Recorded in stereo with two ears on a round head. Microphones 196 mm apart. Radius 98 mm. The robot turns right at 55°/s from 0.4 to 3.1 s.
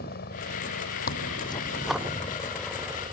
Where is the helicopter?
45° left (ahead or behind); by 3.1 s 25° right (ahead or behind).